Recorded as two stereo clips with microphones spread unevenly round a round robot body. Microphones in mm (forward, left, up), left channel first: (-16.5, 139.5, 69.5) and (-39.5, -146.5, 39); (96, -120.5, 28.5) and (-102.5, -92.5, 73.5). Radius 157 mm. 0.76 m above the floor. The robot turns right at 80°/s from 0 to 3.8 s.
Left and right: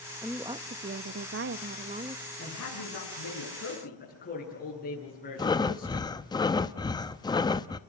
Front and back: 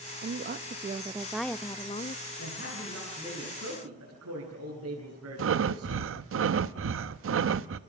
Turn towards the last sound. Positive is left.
turn(degrees=165)